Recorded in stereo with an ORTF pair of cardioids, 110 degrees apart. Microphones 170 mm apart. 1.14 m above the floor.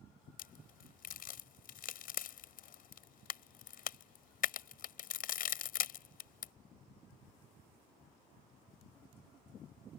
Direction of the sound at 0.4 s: 60° left.